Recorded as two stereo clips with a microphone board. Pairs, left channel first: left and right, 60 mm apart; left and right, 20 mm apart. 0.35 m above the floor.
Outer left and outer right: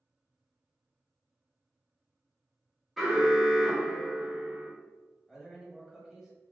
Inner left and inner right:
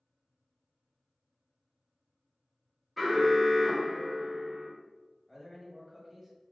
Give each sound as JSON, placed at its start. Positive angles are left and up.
{"t": 3.0, "sound": "an alarm", "side_deg": 0, "distance_m": 1.3}
{"t": 5.3, "sound": "a man speaking", "side_deg": -5, "distance_m": 1.7}